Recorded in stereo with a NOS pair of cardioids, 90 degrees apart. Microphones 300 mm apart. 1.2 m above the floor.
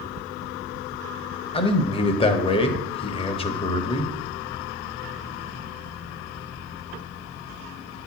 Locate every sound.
1.5 s a man speaking: 20° left, 1.0 m